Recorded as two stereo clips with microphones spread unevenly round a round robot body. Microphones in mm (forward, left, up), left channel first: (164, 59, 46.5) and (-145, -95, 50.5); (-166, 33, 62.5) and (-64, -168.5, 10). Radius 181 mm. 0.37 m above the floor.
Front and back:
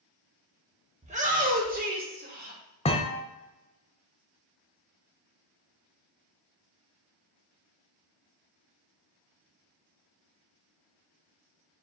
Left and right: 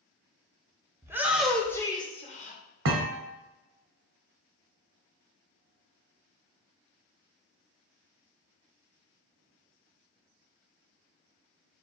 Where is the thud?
45° right, 0.6 m.